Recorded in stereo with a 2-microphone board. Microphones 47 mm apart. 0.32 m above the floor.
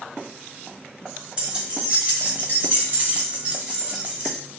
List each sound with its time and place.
1.4 s keys jangling: 30° right (ahead or behind), 1.1 m; by 4.4 s 20° right (ahead or behind), 1.2 m